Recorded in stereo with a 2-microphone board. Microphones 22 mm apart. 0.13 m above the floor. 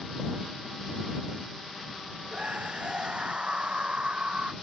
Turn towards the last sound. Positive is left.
turn(degrees=-50)  # may be behind; listen again after turning